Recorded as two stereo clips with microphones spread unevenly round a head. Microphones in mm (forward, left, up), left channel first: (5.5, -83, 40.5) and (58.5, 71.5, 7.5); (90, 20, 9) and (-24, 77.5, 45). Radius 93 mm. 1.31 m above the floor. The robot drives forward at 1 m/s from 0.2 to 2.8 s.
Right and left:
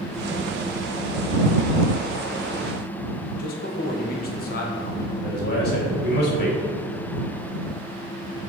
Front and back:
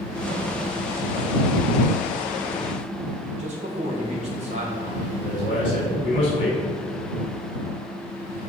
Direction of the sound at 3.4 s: 155° right.